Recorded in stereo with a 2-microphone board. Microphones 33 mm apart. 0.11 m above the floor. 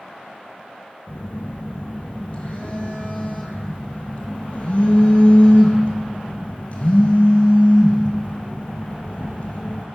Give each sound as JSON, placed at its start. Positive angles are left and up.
{"t": 1.1, "sound": "a phone buzzing", "side_deg": 45, "distance_m": 1.3}